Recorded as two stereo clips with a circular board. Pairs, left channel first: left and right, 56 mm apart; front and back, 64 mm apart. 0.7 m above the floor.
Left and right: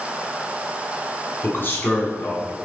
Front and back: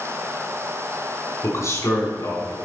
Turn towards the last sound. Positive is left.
turn(degrees=35)